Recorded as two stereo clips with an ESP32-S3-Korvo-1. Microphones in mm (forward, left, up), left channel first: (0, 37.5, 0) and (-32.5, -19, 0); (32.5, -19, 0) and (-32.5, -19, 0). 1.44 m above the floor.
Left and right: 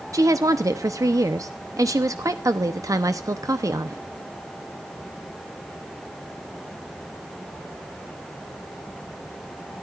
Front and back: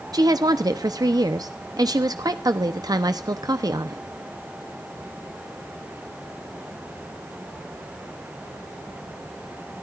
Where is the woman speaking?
160° right, 0.9 m.